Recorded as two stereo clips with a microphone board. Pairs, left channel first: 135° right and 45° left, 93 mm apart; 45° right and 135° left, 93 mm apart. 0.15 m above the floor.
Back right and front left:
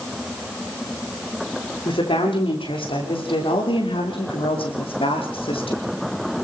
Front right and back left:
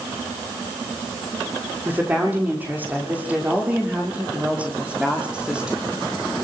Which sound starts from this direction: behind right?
A woman speaking, at 1.9 s.